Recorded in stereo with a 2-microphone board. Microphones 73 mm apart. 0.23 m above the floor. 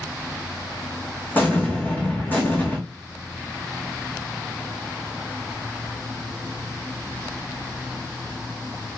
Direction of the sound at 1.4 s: 25° left (ahead or behind).